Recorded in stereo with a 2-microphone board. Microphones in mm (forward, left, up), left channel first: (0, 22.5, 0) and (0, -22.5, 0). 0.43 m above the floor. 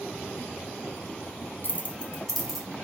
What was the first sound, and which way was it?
Keys jangling, 50° left (ahead or behind).